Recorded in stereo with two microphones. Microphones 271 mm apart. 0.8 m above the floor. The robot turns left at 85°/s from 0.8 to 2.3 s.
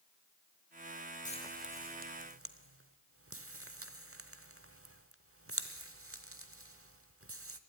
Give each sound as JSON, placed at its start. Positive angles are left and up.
{"t": 1.2, "sound": "frying", "side_deg": 30, "distance_m": 0.9}